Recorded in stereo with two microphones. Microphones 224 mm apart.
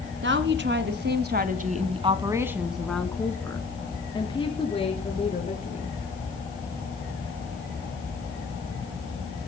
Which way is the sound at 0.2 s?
55° right (ahead or behind).